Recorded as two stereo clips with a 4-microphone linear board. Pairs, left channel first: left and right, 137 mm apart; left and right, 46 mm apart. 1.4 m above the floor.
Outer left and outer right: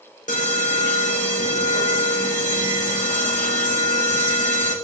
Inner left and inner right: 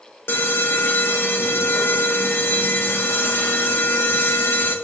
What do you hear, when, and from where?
0.3 s an alarm: 75° left (ahead or behind), 1.6 m